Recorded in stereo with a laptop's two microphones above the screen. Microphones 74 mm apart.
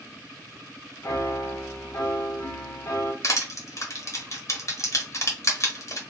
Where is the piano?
45° left (ahead or behind), 0.6 m.